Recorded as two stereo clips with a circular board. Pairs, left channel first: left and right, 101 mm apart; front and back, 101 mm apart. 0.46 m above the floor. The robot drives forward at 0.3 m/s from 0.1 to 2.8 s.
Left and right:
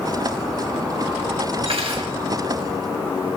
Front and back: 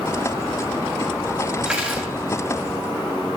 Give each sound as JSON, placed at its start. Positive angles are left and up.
{"t": 1.6, "sound": "cutlery clinking", "azimuth_deg": -100, "distance_m": 1.3}